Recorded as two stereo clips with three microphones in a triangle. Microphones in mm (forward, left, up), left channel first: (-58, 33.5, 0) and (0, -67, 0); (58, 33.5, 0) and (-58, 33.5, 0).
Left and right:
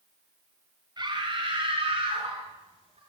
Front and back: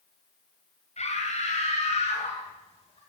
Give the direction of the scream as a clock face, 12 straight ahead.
12 o'clock.